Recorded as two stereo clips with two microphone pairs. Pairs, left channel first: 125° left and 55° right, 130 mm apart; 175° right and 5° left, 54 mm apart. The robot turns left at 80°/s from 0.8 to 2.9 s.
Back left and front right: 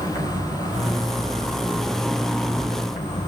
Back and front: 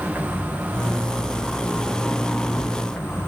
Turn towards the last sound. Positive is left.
turn(degrees=145)